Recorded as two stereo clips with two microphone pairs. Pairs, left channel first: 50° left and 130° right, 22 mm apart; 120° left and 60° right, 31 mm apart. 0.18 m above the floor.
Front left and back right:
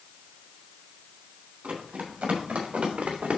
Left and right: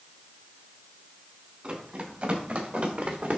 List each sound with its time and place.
1.6 s running footsteps: 105° right, 4 m; by 3.4 s 95° right, 2 m